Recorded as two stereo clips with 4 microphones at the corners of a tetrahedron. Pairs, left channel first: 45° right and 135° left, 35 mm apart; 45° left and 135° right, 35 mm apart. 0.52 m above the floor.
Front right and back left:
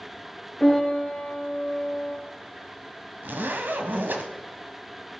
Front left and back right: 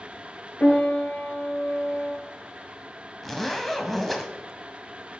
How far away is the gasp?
I don't hear a gasp.